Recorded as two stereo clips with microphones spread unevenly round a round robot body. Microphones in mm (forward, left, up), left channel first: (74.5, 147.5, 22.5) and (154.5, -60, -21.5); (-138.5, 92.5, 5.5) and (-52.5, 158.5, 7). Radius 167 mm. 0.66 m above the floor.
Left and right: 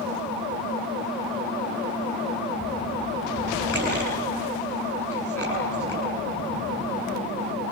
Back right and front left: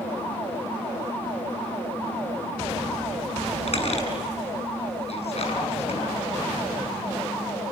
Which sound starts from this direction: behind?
A squeak, at 3.7 s.